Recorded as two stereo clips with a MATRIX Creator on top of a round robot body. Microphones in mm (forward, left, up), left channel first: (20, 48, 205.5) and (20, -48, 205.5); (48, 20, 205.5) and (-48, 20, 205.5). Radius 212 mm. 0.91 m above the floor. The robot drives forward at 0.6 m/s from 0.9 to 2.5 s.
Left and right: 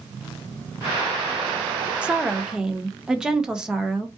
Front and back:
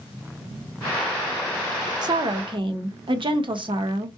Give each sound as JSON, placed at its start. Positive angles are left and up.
{"t": 2.0, "sound": "a woman speaking", "azimuth_deg": -165, "distance_m": 0.7}